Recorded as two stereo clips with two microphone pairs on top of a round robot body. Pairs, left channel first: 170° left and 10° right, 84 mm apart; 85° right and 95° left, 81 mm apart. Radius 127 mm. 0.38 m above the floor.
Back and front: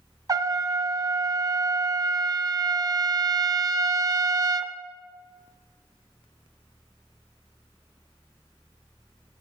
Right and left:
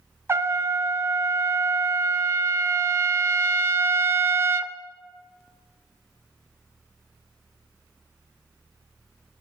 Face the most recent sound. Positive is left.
turn(degrees=35)